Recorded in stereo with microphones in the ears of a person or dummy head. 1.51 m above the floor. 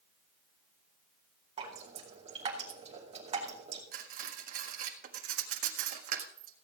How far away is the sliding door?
No sliding door in this recording.